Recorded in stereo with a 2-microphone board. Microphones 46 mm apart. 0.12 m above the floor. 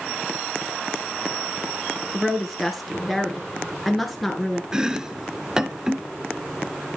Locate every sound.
2.1 s a woman speaking: centre (ahead or behind), 2.5 m
4.7 s chopping: 15° right (ahead or behind), 0.5 m